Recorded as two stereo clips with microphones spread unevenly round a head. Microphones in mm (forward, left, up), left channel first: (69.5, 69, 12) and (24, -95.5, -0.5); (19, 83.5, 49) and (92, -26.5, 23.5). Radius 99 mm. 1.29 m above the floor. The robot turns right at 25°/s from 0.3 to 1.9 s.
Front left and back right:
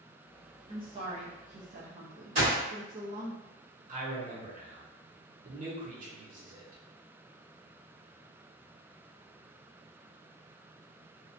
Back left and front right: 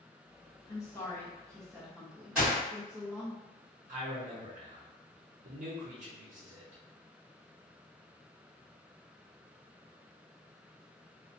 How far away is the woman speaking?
About 0.5 m.